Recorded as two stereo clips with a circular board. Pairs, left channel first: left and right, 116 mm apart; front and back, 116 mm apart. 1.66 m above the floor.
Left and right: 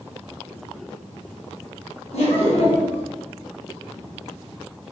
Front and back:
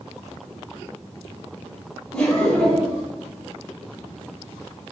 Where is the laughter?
80° left, 1.2 m.